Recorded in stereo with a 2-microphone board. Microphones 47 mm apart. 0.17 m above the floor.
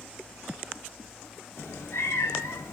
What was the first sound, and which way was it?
A cat meowing, 75° left (ahead or behind).